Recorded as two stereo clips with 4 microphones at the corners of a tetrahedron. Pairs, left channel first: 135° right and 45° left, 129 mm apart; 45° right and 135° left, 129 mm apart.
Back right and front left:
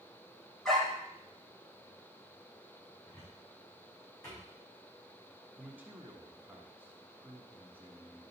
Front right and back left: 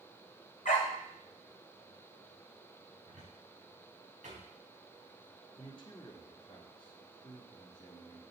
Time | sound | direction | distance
0.7 | a dog barking | 50° right | 1.9 m
3.1 | a cupboard door | 165° left | 4 m
5.6 | a man speaking | 25° right | 1.7 m